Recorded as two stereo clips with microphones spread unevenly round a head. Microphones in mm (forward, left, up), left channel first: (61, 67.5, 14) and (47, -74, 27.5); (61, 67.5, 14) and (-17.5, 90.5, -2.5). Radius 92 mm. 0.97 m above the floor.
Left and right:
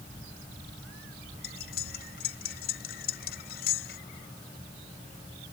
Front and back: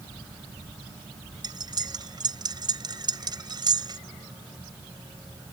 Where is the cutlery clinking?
125° left.